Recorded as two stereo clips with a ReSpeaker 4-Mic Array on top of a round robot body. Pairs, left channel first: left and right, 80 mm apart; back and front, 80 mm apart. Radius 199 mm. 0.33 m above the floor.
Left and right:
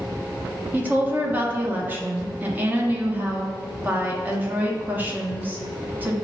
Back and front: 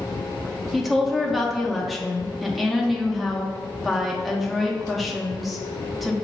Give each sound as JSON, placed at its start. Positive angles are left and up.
{"t": 0.7, "sound": "a woman speaking", "azimuth_deg": -90, "distance_m": 0.9}